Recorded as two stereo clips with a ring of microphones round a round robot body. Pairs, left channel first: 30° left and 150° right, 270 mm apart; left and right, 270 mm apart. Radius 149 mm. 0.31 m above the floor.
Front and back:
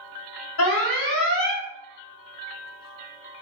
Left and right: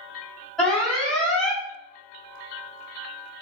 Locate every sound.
0.6 s an alarm: straight ahead, 1.5 m